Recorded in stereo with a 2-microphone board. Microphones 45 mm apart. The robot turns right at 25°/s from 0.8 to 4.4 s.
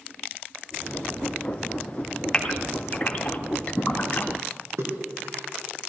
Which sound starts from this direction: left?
A gasp, at 2.3 s.